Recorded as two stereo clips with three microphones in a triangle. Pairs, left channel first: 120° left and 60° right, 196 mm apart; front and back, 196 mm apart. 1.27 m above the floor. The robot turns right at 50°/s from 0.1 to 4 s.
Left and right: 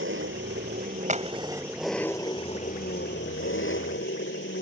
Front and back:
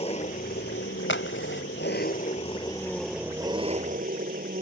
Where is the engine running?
60° right; by 4.6 s 135° left.